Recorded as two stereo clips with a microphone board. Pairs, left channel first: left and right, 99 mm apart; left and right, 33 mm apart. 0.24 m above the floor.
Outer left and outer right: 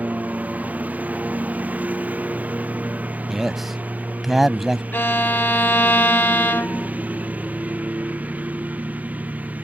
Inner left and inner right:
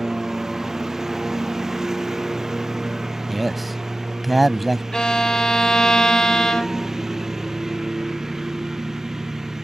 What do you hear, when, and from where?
0.0 s a lawn mower: 15° right (ahead or behind)
3.3 s a man speaking: centre (ahead or behind)
4.9 s a violin: 20° left (ahead or behind)